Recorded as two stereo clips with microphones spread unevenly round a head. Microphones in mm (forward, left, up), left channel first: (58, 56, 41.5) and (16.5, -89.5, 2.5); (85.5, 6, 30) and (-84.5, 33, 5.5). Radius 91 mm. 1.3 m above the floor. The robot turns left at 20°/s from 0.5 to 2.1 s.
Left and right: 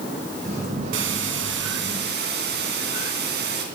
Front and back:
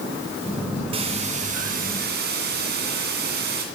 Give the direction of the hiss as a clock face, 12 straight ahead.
4 o'clock.